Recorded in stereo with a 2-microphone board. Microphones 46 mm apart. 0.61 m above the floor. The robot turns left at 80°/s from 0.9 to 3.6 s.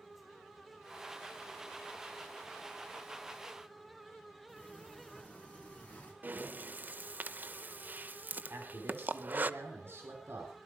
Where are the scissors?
No scissors in this recording.